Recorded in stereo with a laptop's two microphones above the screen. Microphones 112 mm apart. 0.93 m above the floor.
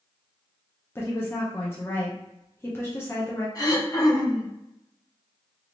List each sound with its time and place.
0.9 s a woman speaking: 20° left (ahead or behind), 0.6 m
3.5 s throat clearing: 30° left (ahead or behind), 1.1 m